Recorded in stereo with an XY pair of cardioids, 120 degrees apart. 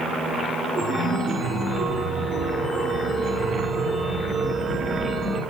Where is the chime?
50° right, 3.5 m.